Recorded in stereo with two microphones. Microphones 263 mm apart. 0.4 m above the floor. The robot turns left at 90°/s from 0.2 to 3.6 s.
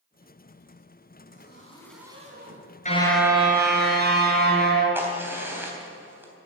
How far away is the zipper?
About 3 m.